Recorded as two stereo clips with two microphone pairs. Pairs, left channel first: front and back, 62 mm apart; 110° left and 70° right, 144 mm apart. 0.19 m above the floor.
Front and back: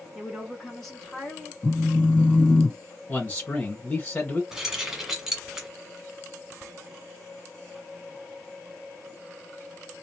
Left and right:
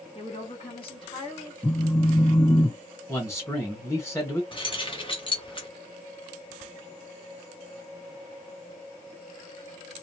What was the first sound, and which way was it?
A woman speaking, 105° left.